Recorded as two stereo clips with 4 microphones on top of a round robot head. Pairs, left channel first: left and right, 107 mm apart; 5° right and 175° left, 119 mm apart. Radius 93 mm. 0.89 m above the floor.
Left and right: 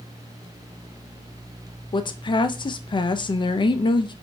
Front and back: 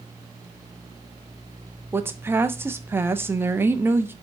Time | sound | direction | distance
1.9 | a woman speaking | 105° left | 0.5 m